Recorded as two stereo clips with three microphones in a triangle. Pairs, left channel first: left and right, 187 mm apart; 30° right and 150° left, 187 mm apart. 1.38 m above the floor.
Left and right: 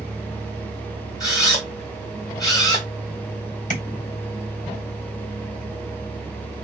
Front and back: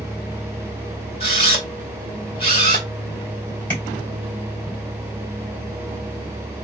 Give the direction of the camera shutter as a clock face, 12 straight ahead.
11 o'clock.